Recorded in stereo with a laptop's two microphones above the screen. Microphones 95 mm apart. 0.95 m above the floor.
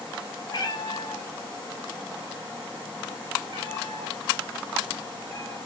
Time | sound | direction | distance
0.5 | a cat meowing | 50° left (ahead or behind) | 0.9 m